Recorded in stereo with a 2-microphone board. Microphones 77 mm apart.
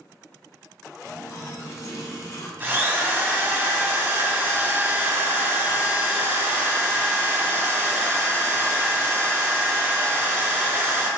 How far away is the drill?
About 0.8 m.